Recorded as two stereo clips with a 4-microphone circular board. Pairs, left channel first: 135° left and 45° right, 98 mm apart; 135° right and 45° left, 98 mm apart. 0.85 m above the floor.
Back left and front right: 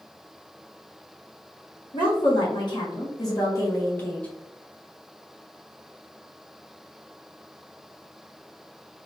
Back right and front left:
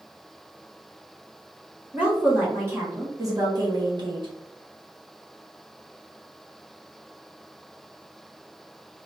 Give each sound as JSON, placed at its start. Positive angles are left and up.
{"t": 1.9, "sound": "a woman speaking", "azimuth_deg": 115, "distance_m": 1.5}